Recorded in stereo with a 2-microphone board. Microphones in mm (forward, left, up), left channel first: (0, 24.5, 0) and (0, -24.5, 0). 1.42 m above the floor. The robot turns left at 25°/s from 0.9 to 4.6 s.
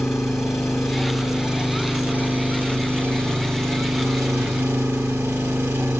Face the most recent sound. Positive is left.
turn(degrees=-90)